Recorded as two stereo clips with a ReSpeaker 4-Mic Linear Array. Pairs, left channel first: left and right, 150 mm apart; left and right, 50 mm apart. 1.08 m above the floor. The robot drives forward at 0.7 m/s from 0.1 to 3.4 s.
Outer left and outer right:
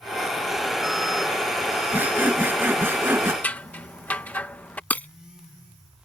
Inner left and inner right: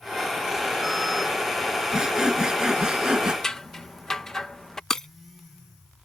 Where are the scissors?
10° left (ahead or behind).